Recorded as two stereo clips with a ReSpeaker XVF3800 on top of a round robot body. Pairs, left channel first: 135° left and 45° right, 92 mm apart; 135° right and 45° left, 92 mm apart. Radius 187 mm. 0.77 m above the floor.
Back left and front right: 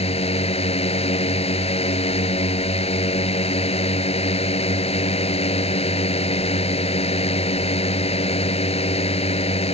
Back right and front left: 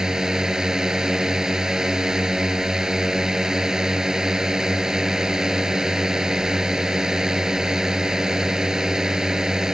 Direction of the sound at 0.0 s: 130° left.